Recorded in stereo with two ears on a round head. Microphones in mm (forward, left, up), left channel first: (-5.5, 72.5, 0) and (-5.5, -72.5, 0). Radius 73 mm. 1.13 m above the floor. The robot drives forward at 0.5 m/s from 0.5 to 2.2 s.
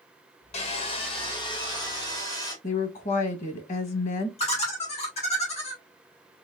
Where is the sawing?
45° left (ahead or behind), 1.0 m; by 2.5 s 25° left (ahead or behind), 1.7 m.